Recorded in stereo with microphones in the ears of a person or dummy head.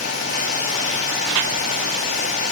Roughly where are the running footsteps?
No running footsteps in this recording.